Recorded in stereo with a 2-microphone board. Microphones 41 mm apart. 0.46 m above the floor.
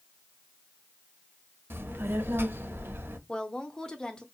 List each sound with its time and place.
1.7 s a child speaking: 70° right (ahead or behind), 0.8 m
3.3 s a woman speaking: 20° left (ahead or behind), 0.7 m